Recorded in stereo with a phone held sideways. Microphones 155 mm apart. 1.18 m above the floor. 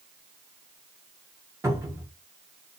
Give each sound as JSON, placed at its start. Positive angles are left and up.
{"t": 1.6, "sound": "a cupboard door", "side_deg": -20, "distance_m": 1.1}